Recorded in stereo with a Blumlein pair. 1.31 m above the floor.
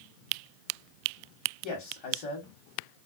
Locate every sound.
1.6 s a man speaking: 35° left, 1.2 m